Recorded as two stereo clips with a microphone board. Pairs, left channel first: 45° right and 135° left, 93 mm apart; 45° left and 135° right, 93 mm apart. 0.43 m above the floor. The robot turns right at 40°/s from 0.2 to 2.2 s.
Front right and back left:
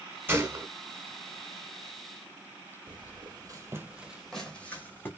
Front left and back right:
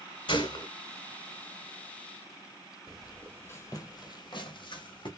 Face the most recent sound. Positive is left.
turn(degrees=20)